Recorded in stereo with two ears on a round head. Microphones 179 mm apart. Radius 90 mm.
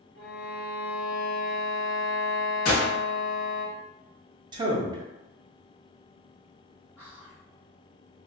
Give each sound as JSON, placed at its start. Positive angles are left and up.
{"t": 0.1, "sound": "a violin", "side_deg": 50, "distance_m": 0.9}
{"t": 2.6, "sound": "a gunshot", "side_deg": 45, "distance_m": 1.5}
{"t": 4.5, "sound": "a man speaking", "side_deg": -25, "distance_m": 0.5}
{"t": 7.0, "sound": "whispering", "side_deg": 5, "distance_m": 0.8}